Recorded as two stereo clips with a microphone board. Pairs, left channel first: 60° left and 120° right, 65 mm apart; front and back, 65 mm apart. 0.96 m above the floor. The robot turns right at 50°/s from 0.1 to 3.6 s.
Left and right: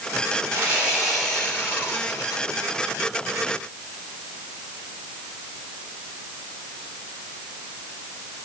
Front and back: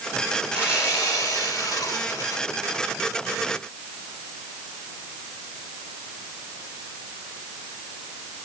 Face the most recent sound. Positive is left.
turn(degrees=95)